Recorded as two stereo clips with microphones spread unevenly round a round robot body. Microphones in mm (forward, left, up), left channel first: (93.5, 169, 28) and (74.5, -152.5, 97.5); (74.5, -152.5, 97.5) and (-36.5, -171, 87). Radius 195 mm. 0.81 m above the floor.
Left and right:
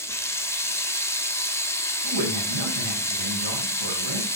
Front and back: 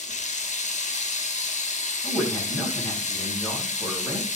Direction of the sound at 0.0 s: 5° left.